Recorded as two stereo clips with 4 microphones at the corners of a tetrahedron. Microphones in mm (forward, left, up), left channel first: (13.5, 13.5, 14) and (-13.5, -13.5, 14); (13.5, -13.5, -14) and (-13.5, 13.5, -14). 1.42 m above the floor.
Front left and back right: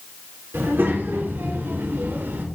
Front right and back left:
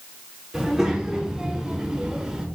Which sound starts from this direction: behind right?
A child speaking, at 0.5 s.